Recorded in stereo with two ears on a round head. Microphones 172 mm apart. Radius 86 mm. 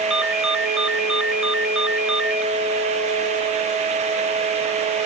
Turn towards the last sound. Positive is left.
turn(degrees=-5)  # may be behind; listen again after turning